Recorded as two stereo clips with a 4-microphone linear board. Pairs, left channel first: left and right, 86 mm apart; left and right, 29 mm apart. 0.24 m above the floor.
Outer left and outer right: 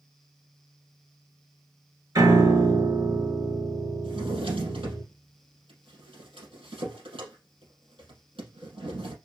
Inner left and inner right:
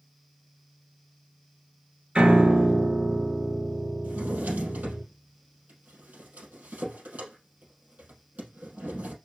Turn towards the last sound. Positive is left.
turn(degrees=-75)  # may be behind; listen again after turning